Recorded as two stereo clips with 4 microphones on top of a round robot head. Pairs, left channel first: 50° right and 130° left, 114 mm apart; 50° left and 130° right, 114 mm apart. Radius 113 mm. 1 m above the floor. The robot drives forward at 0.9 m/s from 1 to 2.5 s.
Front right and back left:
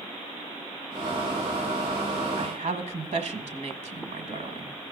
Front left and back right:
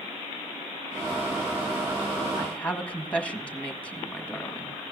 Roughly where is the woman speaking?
Behind left.